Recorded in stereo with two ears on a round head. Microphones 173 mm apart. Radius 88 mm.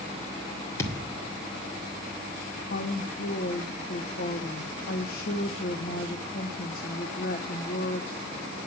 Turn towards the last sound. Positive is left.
turn(degrees=45)  # may be behind; listen again after turning